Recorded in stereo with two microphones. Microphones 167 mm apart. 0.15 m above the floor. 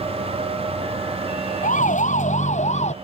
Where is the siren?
50° left (ahead or behind); by 2.9 s 45° left (ahead or behind).